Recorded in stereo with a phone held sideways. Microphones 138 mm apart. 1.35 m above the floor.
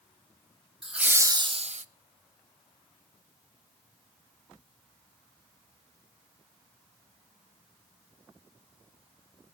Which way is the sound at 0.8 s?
Centre (ahead or behind).